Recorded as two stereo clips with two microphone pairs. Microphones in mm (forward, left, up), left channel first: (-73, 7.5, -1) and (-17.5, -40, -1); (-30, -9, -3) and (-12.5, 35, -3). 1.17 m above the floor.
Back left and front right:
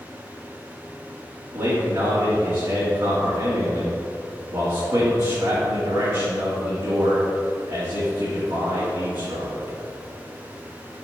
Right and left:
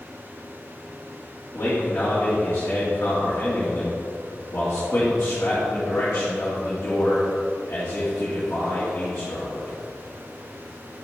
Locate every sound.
1.5 s a man speaking: 70° right, 2.5 m